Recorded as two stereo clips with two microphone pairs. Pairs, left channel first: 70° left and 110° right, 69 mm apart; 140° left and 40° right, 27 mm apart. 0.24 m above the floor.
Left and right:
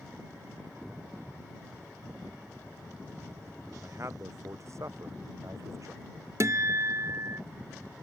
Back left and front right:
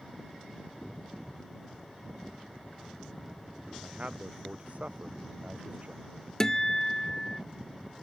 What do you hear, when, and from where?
3.8 s a man speaking: 65° right; by 6.0 s 75° right
6.4 s a guitar: 150° right